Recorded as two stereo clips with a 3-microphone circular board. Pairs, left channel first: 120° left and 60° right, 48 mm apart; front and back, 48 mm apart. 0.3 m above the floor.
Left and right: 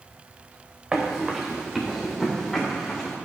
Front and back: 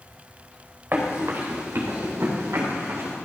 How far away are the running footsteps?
About 1.9 m.